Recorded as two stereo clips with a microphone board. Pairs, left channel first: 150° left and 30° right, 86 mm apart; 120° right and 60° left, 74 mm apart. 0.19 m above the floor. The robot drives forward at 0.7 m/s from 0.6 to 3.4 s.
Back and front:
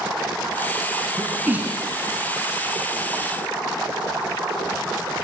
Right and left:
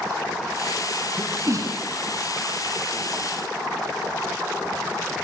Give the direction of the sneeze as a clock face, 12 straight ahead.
11 o'clock.